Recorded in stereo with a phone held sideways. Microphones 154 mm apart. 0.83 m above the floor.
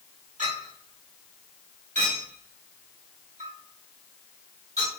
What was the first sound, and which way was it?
A clink, 55° right (ahead or behind).